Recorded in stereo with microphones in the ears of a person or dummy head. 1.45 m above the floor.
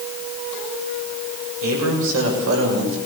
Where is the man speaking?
80° right, 7 m; by 3.0 s 65° right (ahead or behind), 7 m.